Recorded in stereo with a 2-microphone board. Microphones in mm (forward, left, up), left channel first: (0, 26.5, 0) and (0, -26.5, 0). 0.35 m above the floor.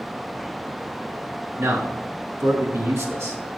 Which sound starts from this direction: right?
A man speaking, at 1.6 s.